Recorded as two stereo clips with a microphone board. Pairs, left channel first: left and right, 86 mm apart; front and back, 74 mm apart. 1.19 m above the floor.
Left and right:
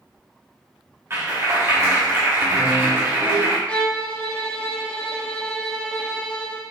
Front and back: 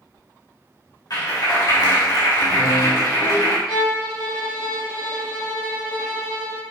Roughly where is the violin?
Ahead.